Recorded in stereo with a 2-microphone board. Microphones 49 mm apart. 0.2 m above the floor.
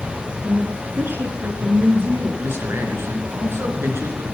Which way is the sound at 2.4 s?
60° right (ahead or behind).